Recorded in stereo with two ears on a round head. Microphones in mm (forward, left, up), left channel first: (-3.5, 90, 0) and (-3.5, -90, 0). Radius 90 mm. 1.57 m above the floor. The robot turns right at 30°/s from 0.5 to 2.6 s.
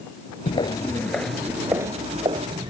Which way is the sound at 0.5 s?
25° left (ahead or behind).